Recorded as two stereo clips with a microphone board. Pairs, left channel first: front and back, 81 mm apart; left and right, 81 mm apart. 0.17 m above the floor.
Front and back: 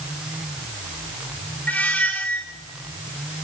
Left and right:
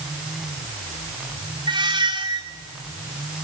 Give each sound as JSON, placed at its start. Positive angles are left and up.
{"t": 1.7, "sound": "a squeak", "azimuth_deg": -75, "distance_m": 1.5}